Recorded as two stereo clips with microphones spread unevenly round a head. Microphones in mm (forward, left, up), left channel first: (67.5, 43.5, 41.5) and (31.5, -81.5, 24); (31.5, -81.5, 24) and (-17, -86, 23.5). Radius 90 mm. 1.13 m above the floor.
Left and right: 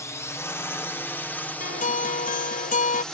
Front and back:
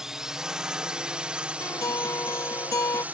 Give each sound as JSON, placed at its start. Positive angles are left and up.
{"t": 0.0, "sound": "a drone", "azimuth_deg": 125}
{"t": 1.6, "sound": "a guitar", "azimuth_deg": 55}